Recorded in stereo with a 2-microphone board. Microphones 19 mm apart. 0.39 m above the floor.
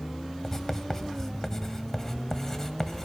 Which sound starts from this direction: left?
Writing, at 0.4 s.